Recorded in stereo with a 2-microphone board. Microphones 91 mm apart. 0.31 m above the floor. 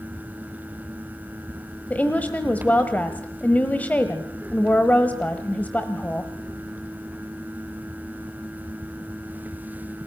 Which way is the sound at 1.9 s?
15° left (ahead or behind).